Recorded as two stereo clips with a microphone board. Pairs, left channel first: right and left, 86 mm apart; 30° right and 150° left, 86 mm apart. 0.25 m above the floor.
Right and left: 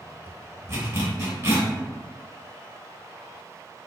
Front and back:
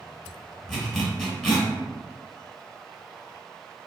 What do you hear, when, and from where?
0.7 s a zipper: 55° left, 1.3 m